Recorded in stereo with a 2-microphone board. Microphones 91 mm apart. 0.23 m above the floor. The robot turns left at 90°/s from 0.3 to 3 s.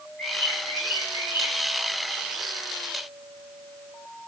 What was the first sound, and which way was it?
A bird, 160° left.